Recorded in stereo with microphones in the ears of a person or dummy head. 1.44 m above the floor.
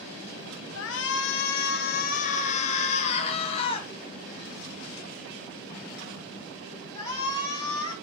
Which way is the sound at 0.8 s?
65° left (ahead or behind).